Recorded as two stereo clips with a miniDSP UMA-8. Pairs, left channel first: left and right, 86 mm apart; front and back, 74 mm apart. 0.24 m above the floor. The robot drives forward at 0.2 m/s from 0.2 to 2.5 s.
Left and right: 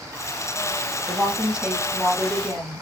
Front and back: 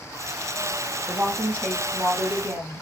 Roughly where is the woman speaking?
Behind.